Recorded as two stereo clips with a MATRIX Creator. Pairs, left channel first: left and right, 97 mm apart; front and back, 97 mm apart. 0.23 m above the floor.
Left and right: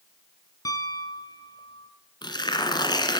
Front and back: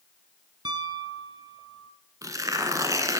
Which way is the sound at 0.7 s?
140° left.